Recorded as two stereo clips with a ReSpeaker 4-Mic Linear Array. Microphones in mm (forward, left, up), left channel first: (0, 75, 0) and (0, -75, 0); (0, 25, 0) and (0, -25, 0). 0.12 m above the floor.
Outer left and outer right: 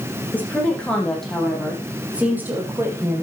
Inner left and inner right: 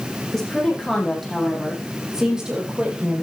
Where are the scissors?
I don't hear scissors.